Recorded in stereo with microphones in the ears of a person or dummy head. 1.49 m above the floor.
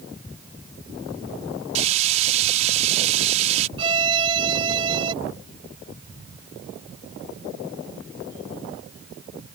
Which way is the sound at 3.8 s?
30° right (ahead or behind).